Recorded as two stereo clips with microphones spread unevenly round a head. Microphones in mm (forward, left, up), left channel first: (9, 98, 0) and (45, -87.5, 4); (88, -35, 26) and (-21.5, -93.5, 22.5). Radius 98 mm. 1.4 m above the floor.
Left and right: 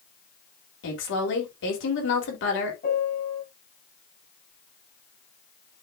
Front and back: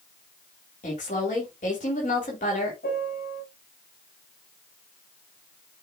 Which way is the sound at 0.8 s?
80° left.